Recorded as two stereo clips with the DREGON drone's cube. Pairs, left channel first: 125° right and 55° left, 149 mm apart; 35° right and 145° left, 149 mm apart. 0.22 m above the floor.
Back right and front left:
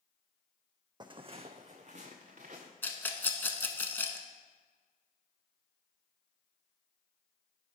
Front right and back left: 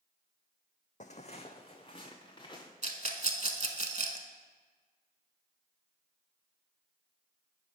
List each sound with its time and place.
1.0 s footsteps: 5° right, 0.5 m; by 2.7 s 25° left, 1.4 m
2.8 s a rattle: 160° left, 0.7 m